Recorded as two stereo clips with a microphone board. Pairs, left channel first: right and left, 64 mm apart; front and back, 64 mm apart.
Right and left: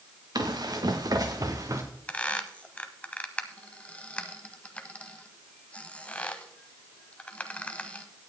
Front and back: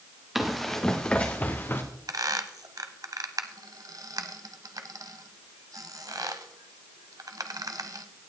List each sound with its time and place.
0.3 s running footsteps: 95° left, 1.8 m; by 1.8 s 55° left, 1.8 m
2.1 s a squeak: 160° right, 0.9 m